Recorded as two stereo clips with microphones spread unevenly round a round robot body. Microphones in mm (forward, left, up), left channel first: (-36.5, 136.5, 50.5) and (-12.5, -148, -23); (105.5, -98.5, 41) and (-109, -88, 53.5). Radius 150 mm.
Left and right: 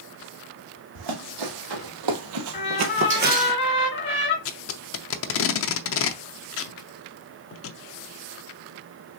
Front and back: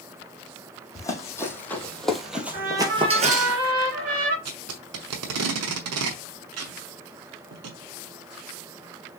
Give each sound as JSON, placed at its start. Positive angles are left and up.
{"t": 0.9, "sound": "running footsteps", "azimuth_deg": -80, "distance_m": 2.0}
{"t": 2.5, "sound": "a trumpet", "azimuth_deg": 150, "distance_m": 3.5}
{"t": 4.5, "sound": "tape being pulled", "azimuth_deg": 140, "distance_m": 0.6}